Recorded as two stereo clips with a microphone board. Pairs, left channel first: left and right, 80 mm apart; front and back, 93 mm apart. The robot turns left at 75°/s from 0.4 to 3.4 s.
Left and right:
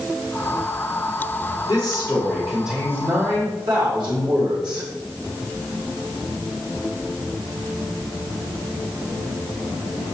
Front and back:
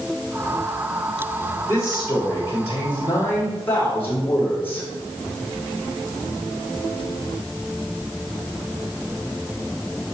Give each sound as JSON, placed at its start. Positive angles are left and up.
{"t": 1.7, "sound": "a man speaking", "azimuth_deg": 60, "distance_m": 2.5}